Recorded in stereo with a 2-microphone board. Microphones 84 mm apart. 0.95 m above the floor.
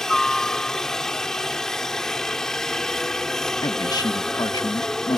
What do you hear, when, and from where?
0.0 s a helicopter: 5° left (ahead or behind)
3.6 s a man speaking: 50° left (ahead or behind)